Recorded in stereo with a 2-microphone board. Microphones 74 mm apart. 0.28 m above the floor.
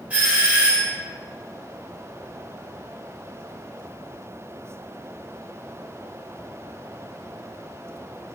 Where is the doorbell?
20° right (ahead or behind), 1.7 m.